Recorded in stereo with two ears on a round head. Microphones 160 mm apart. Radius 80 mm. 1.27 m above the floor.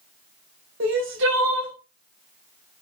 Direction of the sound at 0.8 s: 80° right.